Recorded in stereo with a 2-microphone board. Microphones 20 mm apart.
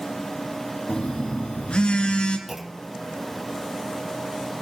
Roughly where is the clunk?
Centre.